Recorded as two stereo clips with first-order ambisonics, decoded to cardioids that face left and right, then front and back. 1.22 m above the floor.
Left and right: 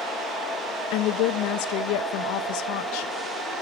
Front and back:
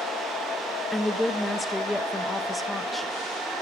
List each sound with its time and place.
0.9 s a woman speaking: 85° left, 1.2 m